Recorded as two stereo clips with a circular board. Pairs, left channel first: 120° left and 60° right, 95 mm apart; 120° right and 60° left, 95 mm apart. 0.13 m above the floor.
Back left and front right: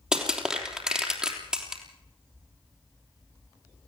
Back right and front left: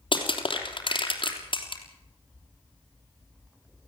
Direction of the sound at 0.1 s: 140° right.